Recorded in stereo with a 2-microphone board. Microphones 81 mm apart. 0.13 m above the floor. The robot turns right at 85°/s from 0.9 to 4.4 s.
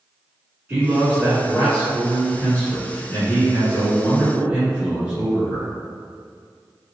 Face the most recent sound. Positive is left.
turn(degrees=-15)  # may be behind; listen again after turning